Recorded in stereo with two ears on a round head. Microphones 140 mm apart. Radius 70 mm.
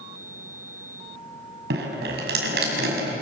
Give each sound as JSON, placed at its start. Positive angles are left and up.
{"t": 1.7, "sound": "dripping", "side_deg": -70, "distance_m": 6.0}